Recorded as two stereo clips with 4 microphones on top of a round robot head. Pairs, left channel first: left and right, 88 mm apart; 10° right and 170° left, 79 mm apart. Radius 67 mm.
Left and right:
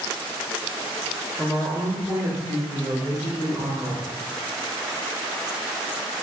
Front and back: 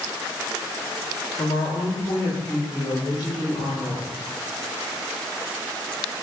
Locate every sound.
1.4 s a woman speaking: straight ahead, 1.0 m; by 4.1 s 50° right, 2.5 m